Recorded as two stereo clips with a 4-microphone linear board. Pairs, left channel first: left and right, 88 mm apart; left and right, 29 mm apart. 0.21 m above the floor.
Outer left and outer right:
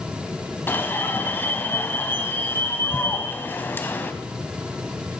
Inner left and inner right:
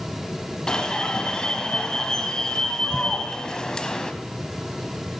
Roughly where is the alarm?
Left.